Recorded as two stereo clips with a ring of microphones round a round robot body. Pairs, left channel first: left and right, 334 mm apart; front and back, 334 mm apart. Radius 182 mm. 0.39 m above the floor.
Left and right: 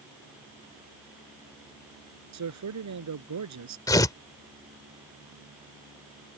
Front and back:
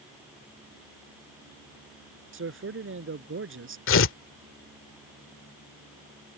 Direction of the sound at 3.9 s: 15° left.